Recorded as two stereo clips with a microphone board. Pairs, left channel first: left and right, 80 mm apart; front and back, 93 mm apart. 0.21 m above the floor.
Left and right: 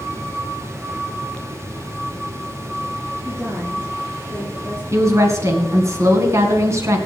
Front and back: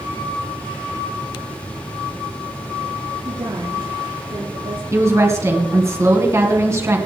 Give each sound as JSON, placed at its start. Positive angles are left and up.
{"t": 3.2, "sound": "a woman speaking", "azimuth_deg": -155, "distance_m": 4.5}
{"t": 4.9, "sound": "a woman speaking", "azimuth_deg": -130, "distance_m": 2.5}